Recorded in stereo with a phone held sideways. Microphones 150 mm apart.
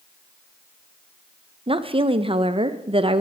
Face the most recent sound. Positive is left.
turn(degrees=-35)  # may be behind; listen again after turning